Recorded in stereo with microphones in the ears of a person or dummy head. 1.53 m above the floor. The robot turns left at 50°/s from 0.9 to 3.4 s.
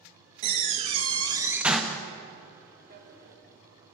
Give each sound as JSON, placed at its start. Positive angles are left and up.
{"t": 0.4, "sound": "a door slam", "azimuth_deg": -135, "distance_m": 0.5}
{"t": 2.9, "sound": "a drawer", "side_deg": -45, "distance_m": 1.6}